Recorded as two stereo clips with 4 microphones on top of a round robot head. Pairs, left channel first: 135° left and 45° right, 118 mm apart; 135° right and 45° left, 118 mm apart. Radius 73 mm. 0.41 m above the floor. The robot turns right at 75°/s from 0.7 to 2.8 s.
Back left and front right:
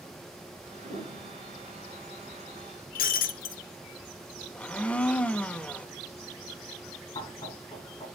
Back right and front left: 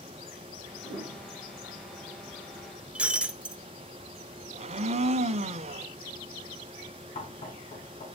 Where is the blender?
55° left, 0.7 m.